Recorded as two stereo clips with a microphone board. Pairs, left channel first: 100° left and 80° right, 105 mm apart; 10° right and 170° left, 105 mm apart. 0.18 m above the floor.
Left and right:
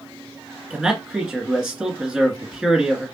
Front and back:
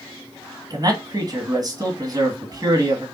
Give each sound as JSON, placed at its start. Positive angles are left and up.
{"t": 0.7, "sound": "a man speaking", "azimuth_deg": -160, "distance_m": 1.6}